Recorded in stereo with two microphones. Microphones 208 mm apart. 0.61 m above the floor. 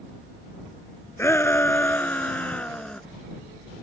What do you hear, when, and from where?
1.2 s a shout: 10° left (ahead or behind); by 3.0 s 5° left (ahead or behind)